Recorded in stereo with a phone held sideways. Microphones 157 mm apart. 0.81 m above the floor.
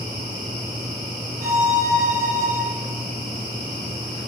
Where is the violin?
65° right (ahead or behind), 1.8 m.